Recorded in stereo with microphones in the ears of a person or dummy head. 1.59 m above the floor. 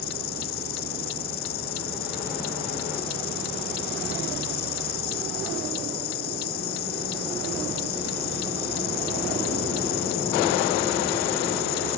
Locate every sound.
0.0 s an insect: 55° left (ahead or behind)